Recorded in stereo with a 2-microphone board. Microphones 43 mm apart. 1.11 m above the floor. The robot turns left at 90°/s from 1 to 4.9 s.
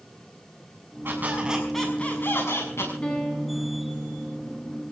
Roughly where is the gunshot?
I don't hear a gunshot.